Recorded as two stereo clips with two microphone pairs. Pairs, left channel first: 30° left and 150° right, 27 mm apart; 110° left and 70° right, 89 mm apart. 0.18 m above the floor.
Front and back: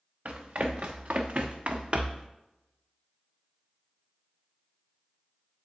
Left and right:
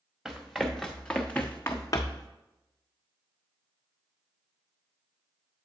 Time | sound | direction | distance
0.2 | running footsteps | 150° right | 1.3 m